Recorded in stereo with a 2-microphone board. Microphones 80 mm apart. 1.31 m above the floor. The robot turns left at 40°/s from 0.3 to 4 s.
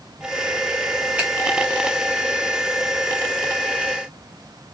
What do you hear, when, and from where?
1.2 s a finger snap: 20° right (ahead or behind), 1.0 m; by 1.3 s 15° right (ahead or behind), 1.0 m